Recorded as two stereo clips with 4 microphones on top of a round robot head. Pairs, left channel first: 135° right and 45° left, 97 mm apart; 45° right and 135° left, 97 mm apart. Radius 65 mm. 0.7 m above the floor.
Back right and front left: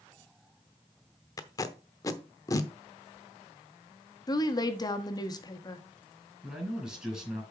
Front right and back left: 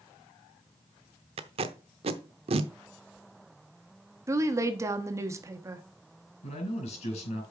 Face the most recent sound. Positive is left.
turn(degrees=-40)